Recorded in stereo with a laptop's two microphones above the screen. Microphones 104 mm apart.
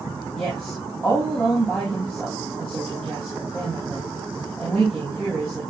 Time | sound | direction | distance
0.3 | a woman speaking | 5° left (ahead or behind) | 6 m